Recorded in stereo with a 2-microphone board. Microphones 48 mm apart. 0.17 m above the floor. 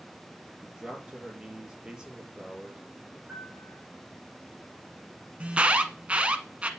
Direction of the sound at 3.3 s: 5° right (ahead or behind).